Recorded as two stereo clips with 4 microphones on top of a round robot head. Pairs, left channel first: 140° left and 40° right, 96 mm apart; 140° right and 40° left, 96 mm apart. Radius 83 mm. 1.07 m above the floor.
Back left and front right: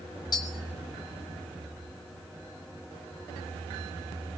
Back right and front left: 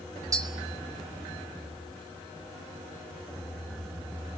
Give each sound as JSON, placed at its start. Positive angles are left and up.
{"t": 0.3, "sound": "tapping", "azimuth_deg": 95, "distance_m": 3.0}